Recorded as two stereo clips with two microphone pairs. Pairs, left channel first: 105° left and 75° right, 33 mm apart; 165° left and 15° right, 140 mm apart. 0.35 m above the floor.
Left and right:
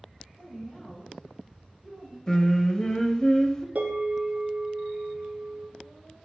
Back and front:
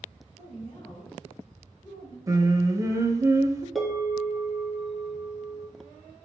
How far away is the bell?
About 0.9 m.